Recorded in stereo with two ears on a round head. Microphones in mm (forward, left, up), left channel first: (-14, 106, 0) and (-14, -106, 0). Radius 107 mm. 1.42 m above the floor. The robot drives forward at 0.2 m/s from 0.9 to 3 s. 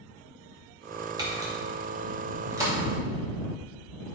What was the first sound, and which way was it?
A camera shutter, 15° right (ahead or behind).